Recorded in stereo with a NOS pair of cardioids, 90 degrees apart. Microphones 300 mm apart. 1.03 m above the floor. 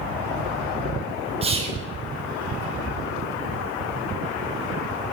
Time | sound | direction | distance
1.4 | whispering | 20° right | 0.6 m